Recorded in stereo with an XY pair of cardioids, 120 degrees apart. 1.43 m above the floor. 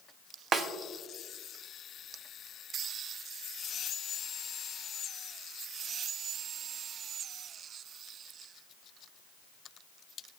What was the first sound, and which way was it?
A snare drum, 50° right.